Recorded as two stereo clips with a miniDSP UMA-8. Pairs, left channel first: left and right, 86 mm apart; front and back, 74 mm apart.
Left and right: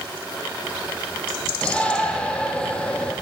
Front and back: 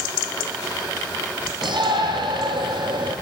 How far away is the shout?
About 5.5 m.